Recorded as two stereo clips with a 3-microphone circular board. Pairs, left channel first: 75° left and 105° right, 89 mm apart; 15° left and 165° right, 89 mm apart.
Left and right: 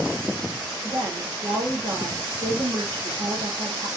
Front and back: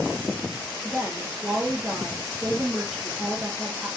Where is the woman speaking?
70° right, 5 m.